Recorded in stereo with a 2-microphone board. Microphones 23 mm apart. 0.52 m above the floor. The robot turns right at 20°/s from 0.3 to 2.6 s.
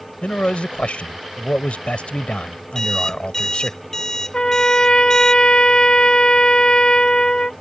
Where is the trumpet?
40° left (ahead or behind).